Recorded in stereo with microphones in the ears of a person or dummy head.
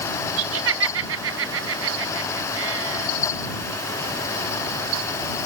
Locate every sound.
0.4 s laughter: 75° right (ahead or behind)